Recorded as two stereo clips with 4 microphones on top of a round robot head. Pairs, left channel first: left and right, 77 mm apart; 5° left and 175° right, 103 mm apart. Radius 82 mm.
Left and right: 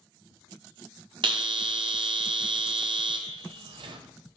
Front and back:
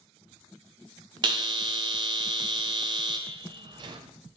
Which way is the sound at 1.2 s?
125° right.